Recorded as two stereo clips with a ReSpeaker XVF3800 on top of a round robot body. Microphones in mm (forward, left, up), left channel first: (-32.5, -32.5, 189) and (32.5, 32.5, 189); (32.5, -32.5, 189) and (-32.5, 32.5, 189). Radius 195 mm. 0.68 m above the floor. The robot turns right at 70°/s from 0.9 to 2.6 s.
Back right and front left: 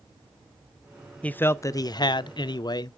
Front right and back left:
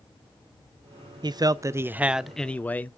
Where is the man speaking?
150° left, 0.6 m; by 3.0 s 115° right, 0.6 m.